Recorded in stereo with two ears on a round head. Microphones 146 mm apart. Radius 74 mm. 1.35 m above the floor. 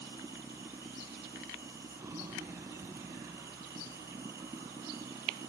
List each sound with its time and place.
0.0 s running water: 20° right (ahead or behind)